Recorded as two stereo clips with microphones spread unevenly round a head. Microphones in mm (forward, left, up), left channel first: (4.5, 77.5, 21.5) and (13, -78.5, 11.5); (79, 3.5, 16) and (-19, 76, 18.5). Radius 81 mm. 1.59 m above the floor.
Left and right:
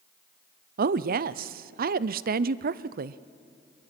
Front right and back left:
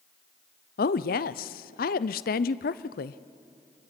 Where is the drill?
No drill in this recording.